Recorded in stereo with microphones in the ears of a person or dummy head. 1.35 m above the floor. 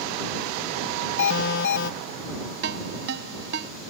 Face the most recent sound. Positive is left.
turn(degrees=-55)  # may be behind; listen again after turning